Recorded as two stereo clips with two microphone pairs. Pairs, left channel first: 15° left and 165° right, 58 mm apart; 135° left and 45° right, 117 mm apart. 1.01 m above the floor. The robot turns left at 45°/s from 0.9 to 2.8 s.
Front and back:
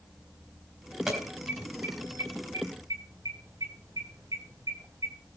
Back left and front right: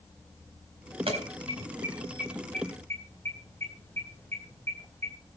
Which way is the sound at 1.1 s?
80° right.